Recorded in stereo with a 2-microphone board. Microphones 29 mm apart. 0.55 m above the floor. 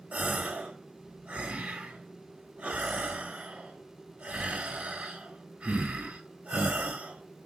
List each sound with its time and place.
0.1 s a gasp: 45° right (ahead or behind), 1.1 m